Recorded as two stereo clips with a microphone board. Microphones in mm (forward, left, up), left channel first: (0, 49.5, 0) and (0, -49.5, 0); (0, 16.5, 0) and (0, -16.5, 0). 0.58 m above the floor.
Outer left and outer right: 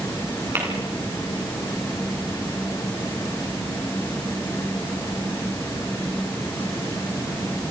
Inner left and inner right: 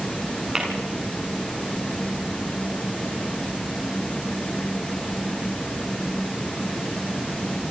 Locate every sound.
0.6 s tapping: 25° right (ahead or behind), 7.5 m